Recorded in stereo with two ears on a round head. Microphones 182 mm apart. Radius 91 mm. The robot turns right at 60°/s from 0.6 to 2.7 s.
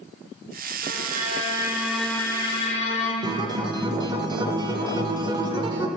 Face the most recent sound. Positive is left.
turn(degrees=-20)  # may be behind; listen again after turning